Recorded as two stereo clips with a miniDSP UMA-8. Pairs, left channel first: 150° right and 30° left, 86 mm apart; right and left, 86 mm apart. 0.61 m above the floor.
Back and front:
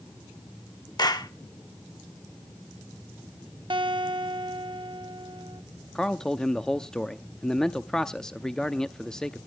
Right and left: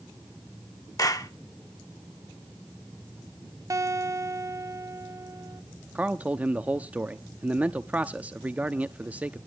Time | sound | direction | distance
1.0 | a clap | 125° right | 1.2 m
3.7 | a guitar | 40° left | 0.9 m
6.0 | a man speaking | 135° left | 0.7 m